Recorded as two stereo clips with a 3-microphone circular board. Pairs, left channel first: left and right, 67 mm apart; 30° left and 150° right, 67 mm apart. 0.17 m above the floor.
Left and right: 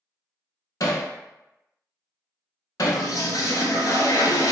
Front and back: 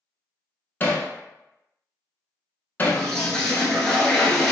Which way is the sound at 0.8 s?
90° left.